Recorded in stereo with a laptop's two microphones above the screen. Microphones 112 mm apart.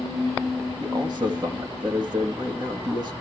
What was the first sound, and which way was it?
A man speaking, 40° right (ahead or behind).